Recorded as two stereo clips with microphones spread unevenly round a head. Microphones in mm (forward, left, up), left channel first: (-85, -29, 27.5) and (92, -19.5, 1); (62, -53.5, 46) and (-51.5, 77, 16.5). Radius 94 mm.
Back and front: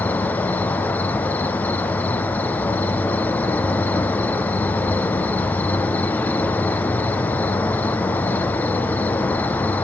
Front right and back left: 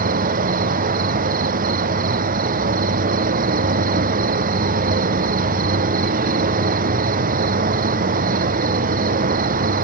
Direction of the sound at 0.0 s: 100° left.